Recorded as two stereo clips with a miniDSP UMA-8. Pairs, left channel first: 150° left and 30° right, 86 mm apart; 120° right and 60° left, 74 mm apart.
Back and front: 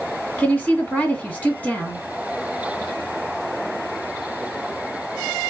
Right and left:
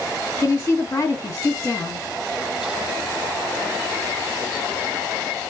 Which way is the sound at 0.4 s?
145° right.